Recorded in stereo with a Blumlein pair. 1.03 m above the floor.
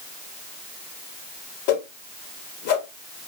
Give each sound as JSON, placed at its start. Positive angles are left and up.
{"t": 1.7, "sound": "a whoosh", "azimuth_deg": 50, "distance_m": 0.7}